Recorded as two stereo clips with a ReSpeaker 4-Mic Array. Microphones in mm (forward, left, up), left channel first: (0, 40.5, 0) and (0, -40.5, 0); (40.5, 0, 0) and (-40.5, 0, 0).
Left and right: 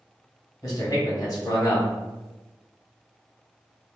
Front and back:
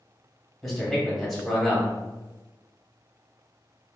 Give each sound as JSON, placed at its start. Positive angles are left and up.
{"t": 0.6, "sound": "a man speaking", "azimuth_deg": 85, "distance_m": 1.3}